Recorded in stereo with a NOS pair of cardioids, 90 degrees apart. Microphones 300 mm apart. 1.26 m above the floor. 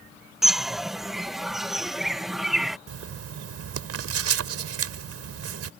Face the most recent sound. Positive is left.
turn(degrees=-55)